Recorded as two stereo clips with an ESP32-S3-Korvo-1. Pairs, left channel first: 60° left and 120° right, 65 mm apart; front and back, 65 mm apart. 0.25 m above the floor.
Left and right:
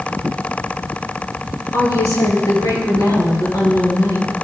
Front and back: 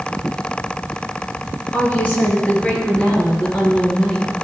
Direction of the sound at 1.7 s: 60° left.